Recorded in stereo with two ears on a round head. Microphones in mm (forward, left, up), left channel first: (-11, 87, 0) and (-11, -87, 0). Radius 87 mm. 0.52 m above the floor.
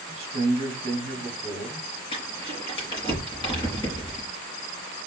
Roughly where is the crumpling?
Left.